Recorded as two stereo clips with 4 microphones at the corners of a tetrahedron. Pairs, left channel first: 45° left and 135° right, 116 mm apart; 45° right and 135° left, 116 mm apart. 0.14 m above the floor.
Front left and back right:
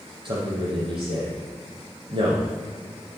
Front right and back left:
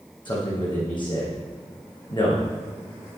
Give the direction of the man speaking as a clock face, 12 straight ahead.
3 o'clock.